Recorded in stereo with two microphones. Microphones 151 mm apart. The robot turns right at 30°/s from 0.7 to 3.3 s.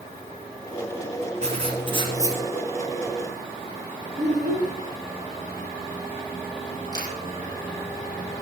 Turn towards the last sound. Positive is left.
turn(degrees=25)  # may be behind; listen again after turning